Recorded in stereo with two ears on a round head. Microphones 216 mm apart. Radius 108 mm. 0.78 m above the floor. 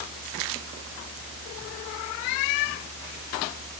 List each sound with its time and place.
Only background noise.